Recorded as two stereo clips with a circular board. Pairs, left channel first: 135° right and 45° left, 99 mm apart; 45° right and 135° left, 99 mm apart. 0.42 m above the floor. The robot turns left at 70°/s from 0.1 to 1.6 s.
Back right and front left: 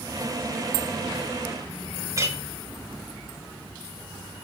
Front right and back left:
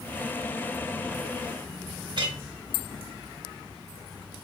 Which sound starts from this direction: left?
A clink, at 2.2 s.